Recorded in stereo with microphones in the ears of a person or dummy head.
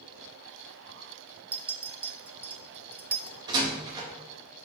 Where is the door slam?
25° right (ahead or behind), 2.0 m.